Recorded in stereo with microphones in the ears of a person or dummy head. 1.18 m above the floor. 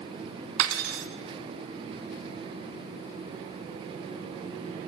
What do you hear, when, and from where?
0.6 s cutlery clinking: 75° right (ahead or behind), 1.0 m